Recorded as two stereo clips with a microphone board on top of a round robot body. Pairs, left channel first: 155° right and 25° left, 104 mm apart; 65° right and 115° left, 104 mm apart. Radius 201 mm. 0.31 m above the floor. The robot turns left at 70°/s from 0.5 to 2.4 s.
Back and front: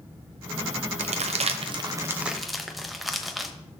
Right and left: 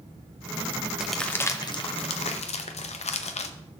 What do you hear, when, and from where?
1.0 s crumpling: 30° left, 0.7 m; by 3.5 s 65° right, 0.7 m